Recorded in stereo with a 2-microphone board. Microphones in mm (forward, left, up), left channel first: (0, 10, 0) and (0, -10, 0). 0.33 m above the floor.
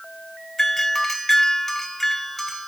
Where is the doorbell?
15° left (ahead or behind), 1.7 m.